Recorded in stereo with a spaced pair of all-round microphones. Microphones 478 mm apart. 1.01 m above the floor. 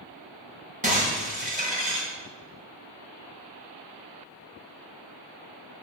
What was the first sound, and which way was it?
Breaking glass, 15° right (ahead or behind).